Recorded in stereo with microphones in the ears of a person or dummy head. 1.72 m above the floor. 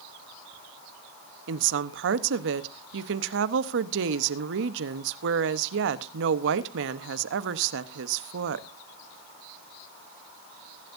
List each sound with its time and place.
1.5 s a woman speaking: 70° right (ahead or behind), 1.0 m